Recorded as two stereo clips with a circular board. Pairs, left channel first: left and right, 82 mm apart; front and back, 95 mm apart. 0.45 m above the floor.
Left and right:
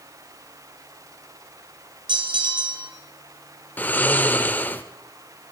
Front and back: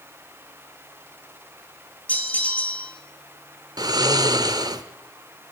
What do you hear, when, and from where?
2.1 s a bell: 75° right, 1.7 m
3.8 s snoring: 150° left, 0.8 m